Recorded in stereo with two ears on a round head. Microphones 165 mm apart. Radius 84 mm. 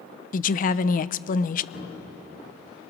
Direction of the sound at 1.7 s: 60° left (ahead or behind).